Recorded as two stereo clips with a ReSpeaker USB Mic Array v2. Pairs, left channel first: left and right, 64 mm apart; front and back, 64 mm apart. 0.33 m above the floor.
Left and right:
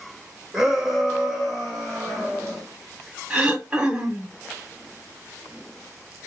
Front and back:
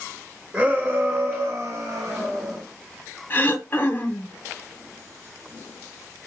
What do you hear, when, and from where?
0.5 s a shout: 155° right, 0.9 m; by 2.6 s 175° left, 1.9 m
3.3 s throat clearing: 30° right, 0.9 m